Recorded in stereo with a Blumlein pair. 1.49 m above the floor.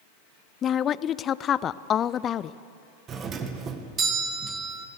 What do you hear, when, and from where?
0.6 s a woman speaking: 25° left, 0.5 m
3.1 s a doorbell: 25° right, 1.5 m